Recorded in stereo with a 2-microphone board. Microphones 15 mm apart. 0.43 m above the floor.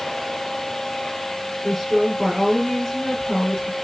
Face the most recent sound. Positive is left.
turn(degrees=35)  # may be behind; listen again after turning